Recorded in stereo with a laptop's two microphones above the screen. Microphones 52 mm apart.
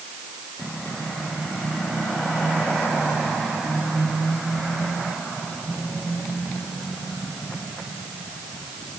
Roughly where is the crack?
No crack in this recording.